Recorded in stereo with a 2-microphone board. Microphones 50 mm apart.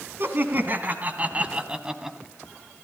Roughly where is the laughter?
Right.